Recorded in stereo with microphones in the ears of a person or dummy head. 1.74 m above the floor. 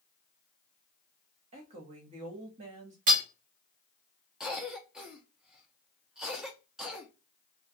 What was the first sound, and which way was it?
A woman speaking, 30° right (ahead or behind).